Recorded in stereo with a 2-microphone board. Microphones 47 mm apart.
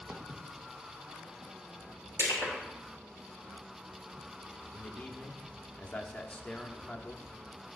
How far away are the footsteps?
About 1.5 m.